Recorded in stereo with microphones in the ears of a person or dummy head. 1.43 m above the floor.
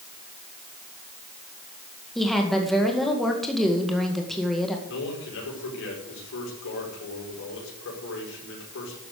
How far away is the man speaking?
About 5.5 m.